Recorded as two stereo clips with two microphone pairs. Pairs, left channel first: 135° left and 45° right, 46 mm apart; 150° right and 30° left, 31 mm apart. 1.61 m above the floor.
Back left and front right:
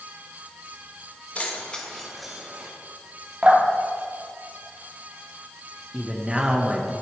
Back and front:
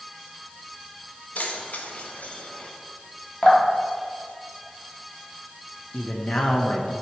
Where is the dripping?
110° right, 2.5 m.